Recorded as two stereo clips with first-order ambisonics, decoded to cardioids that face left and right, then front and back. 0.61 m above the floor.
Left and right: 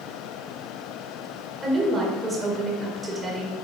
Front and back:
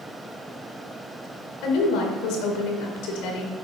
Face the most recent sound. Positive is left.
turn(degrees=-15)